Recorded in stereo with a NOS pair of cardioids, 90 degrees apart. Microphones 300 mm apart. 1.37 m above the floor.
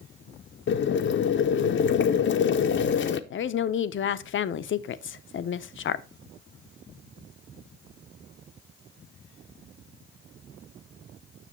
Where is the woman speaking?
45° left, 0.6 m.